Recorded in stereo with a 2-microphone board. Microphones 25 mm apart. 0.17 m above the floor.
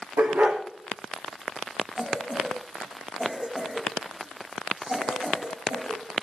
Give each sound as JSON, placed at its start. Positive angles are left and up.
{"t": 0.2, "sound": "a dog barking", "side_deg": -80, "distance_m": 5.5}
{"t": 2.0, "sound": "a cough", "side_deg": -35, "distance_m": 8.5}